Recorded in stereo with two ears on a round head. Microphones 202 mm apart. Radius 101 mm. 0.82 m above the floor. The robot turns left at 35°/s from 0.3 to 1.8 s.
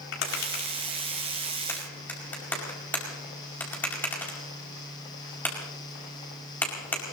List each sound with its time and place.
0.1 s tapping: 60° left (ahead or behind), 5 m; by 7.1 s 10° left (ahead or behind), 5 m